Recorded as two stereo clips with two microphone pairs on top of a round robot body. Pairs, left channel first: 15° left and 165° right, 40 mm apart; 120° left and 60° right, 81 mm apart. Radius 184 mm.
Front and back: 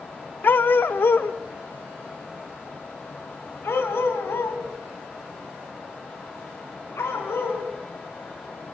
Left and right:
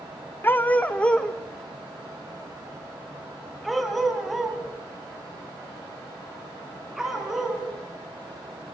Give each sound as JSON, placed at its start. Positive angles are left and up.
{"t": 0.4, "sound": "a dog barking", "azimuth_deg": 55, "distance_m": 0.7}